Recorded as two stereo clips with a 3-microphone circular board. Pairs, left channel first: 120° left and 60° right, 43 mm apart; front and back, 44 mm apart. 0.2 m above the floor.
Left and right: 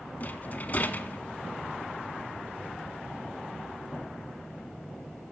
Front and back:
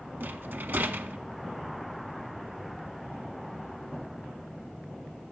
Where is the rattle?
160° left, 0.5 m.